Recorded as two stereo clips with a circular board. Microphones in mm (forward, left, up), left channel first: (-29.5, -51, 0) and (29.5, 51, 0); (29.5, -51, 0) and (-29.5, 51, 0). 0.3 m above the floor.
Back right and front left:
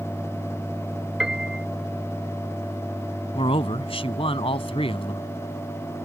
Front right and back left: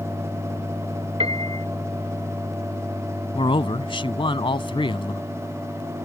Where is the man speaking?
95° right.